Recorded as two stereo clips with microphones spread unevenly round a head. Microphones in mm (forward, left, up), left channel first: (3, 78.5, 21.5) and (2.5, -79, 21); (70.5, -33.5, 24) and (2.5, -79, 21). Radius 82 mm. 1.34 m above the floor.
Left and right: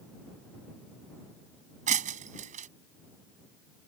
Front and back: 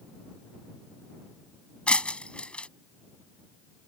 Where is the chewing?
I don't hear chewing.